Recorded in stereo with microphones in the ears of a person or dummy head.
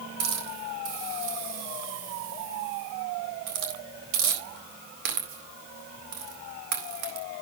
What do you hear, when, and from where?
0.2 s a hiss: 65° right (ahead or behind), 4 m